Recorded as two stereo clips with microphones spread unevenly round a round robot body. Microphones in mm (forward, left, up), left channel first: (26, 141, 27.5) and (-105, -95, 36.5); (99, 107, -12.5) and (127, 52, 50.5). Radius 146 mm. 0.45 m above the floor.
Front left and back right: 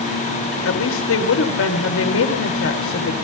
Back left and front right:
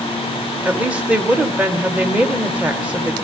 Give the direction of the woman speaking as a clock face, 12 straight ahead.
10 o'clock.